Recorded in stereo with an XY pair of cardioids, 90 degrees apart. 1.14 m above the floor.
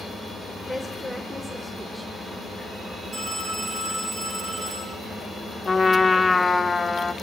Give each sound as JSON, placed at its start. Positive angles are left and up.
{"t": 0.7, "sound": "a woman speaking", "azimuth_deg": -15, "distance_m": 3.5}
{"t": 3.1, "sound": "a phone ringing", "azimuth_deg": -50, "distance_m": 10.0}
{"t": 5.7, "sound": "a trumpet", "azimuth_deg": 25, "distance_m": 1.2}